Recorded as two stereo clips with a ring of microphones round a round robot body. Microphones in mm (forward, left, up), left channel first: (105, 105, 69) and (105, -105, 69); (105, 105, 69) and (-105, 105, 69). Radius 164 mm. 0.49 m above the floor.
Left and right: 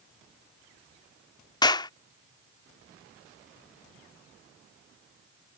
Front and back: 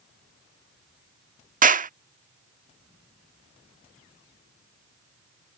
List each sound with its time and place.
1.6 s a clap: 155° left